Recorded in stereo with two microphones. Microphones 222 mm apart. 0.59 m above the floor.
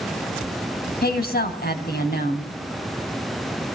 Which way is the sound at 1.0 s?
45° left (ahead or behind).